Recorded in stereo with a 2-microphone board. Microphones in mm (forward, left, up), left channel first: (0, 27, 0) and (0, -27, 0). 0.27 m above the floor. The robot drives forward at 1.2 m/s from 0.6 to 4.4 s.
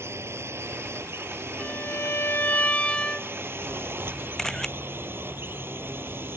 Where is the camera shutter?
10° left (ahead or behind).